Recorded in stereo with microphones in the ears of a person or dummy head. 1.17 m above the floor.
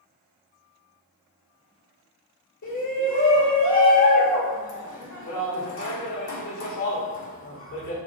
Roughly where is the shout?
Left.